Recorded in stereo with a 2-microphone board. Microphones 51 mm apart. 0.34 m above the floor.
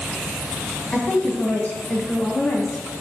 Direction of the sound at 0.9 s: 35° left (ahead or behind).